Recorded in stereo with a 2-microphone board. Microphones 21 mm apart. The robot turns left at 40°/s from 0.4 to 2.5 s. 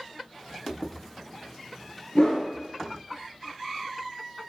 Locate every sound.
2.1 s a whoosh: 60° left (ahead or behind), 0.7 m; by 2.5 s 50° left (ahead or behind), 0.7 m